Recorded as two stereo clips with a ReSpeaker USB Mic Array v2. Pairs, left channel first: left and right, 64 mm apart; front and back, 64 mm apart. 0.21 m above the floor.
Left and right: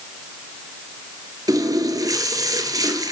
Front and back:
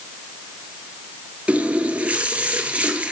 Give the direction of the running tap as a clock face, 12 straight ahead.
4 o'clock.